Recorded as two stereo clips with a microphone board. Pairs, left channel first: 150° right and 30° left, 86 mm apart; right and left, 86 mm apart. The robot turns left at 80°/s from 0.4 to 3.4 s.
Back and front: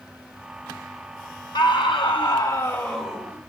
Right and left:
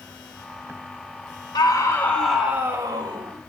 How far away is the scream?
About 3 m.